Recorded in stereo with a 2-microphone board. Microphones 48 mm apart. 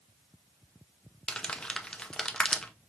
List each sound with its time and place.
1.3 s crumpling: 15° left (ahead or behind), 0.6 m